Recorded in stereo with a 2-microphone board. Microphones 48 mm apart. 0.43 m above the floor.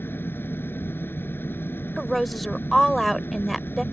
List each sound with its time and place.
0.0 s an engine running: 50° left (ahead or behind)
2.0 s a woman speaking: centre (ahead or behind)